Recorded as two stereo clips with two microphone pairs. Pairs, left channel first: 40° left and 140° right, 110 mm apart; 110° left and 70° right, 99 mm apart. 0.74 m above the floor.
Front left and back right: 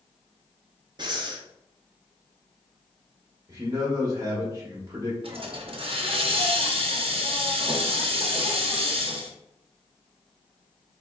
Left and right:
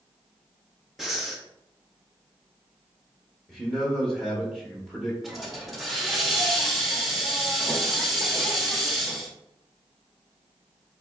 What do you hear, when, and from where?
1.0 s breathing: 160° right, 0.6 m
3.5 s a man speaking: 165° right, 0.8 m
5.2 s a hiss: 160° right, 0.6 m